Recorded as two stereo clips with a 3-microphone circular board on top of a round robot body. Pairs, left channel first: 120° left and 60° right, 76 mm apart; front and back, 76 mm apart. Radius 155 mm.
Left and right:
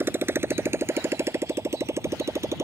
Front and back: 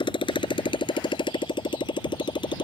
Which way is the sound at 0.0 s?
Straight ahead.